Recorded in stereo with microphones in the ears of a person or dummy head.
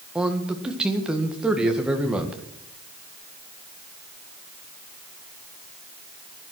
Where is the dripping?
I don't hear dripping.